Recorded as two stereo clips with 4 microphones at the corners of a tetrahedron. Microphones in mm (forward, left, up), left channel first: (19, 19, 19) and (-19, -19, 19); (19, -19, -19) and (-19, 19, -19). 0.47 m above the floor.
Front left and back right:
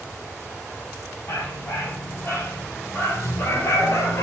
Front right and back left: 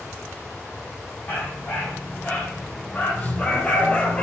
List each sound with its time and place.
1.3 s a dog barking: 10° left, 5 m; by 4.2 s 20° left, 2.5 m